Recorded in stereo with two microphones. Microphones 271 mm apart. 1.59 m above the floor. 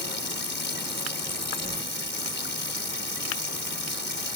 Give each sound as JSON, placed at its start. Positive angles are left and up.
{"t": 0.0, "sound": "running water", "side_deg": 40}